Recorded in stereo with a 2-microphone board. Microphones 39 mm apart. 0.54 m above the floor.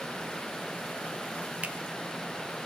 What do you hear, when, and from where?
1.6 s a finger snap: 35° right (ahead or behind), 0.6 m